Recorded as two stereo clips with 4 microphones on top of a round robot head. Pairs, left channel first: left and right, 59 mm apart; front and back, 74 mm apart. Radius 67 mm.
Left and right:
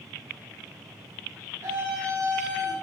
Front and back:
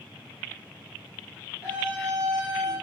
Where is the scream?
110° right, 5.5 m.